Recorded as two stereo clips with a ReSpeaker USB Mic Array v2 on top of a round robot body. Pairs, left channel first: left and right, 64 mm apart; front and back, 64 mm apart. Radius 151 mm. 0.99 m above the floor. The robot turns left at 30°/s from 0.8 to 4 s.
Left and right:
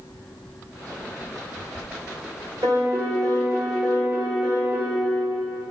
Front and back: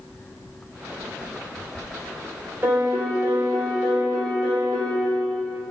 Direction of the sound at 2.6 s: 115° right.